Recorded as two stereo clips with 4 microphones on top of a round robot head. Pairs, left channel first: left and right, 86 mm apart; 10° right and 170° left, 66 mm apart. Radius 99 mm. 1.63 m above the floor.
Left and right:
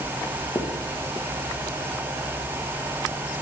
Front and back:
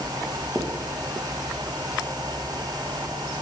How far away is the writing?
About 0.9 m.